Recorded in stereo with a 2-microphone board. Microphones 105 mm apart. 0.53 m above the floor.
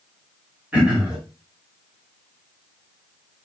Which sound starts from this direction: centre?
Throat clearing, at 0.7 s.